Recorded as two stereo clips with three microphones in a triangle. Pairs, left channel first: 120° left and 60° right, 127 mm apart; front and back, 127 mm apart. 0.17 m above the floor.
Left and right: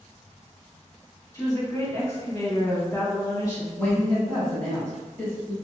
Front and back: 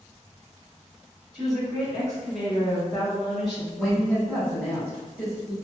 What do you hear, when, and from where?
1.3 s a woman speaking: 90° left, 1.3 m
3.8 s a woman speaking: 75° left, 1.5 m